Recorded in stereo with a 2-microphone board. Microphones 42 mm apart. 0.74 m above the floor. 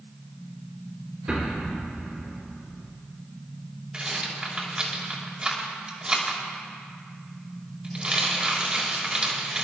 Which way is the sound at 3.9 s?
25° right (ahead or behind).